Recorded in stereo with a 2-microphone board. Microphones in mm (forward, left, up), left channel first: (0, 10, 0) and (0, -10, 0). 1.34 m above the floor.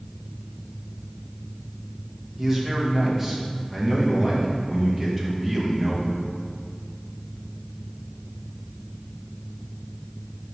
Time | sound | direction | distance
2.4 | a man speaking | 20° right (ahead or behind) | 1.4 m